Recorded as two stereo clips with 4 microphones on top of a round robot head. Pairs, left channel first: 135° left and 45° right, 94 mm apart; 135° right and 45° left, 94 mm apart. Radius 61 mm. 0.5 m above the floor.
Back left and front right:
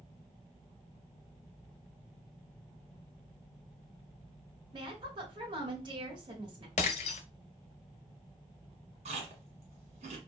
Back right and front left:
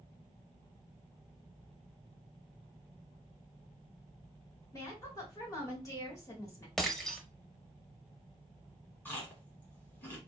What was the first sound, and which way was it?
A woman speaking, 80° right.